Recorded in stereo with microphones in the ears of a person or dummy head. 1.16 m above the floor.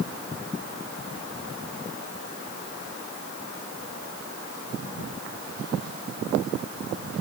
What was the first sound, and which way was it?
Only background noise.